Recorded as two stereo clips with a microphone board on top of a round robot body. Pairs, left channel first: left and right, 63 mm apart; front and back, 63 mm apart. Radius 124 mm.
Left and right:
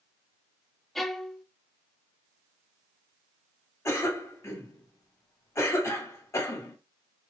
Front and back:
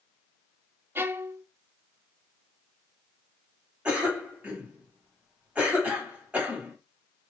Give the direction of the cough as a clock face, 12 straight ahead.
8 o'clock.